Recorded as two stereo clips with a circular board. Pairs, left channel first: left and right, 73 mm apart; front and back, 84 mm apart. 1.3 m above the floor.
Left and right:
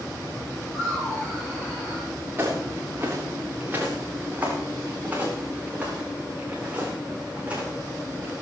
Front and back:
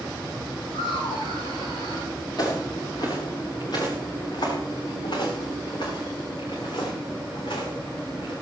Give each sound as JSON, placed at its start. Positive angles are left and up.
{"t": 0.7, "sound": "laughter", "azimuth_deg": 5, "distance_m": 8.0}
{"t": 2.4, "sound": "footsteps", "azimuth_deg": -35, "distance_m": 6.5}